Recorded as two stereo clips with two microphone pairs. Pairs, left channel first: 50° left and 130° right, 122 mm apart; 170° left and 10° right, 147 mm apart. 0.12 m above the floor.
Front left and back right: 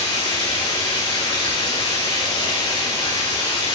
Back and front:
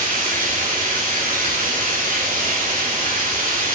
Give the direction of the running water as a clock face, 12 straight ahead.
12 o'clock.